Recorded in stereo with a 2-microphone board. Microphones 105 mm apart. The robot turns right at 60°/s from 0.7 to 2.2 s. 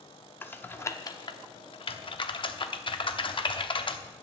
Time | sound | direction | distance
0.4 | typing on a keyboard | 20° left (ahead or behind) | 0.9 m